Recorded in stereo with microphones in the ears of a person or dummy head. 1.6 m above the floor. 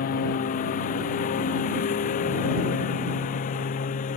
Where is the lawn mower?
45° left (ahead or behind).